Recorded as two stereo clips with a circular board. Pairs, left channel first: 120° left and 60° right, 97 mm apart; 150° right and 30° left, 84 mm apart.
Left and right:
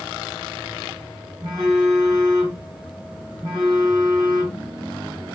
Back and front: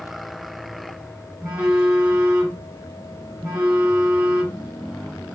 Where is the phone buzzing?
25° right, 1.8 m.